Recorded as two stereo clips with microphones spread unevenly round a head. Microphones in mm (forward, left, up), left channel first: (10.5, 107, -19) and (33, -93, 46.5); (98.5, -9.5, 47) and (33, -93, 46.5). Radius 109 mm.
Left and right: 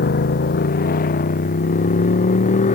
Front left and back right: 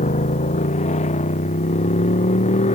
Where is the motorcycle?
50° left; by 2.8 s 40° left.